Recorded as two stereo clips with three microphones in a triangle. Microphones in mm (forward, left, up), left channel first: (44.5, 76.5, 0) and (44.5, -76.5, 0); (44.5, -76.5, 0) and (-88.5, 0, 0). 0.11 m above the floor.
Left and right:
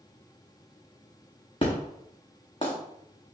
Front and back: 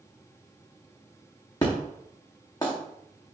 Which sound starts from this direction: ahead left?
An explosion, at 1.6 s.